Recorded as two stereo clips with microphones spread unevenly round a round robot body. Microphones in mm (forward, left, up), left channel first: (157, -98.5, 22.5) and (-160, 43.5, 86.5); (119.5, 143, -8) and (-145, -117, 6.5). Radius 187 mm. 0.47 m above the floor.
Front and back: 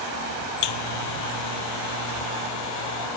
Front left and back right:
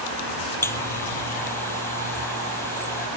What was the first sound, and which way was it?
A buzzer, 40° right.